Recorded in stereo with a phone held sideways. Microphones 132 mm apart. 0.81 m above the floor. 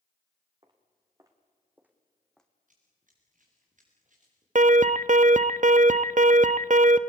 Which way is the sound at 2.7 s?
75° right (ahead or behind).